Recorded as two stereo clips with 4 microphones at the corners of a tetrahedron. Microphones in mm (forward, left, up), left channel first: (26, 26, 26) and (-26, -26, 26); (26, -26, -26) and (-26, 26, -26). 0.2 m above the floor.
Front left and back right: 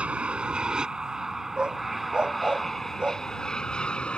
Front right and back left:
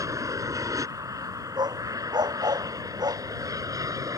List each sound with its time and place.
0.0 s an aircraft: 155° left; by 4.2 s 115° left
1.6 s a dog barking: 150° left